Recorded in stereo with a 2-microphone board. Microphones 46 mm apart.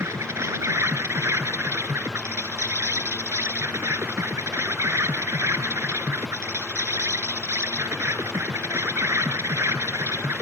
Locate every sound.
0.0 s an insect: 80° right